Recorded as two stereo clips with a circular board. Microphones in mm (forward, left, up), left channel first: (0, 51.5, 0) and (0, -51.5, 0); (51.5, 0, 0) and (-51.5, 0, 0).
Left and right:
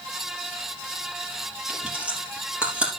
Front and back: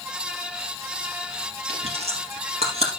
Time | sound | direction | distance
1.7 | chewing | 170° right | 3.5 m